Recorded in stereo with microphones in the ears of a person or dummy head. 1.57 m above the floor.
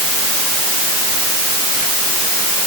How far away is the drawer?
I don't hear a drawer.